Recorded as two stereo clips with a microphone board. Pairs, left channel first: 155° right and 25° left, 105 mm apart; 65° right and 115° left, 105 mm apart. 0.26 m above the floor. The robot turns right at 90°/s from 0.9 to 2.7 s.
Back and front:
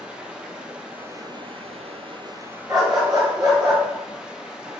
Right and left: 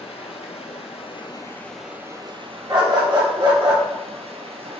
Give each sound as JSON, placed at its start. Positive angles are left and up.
{"t": 0.0, "sound": "running water", "azimuth_deg": -55, "distance_m": 0.8}
{"t": 2.7, "sound": "a dog barking", "azimuth_deg": 70, "distance_m": 1.7}